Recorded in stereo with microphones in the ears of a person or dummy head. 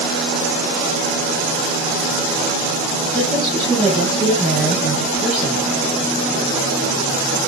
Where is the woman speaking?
Centre (ahead or behind), 10 m; by 5.7 s 5° right (ahead or behind), 12 m.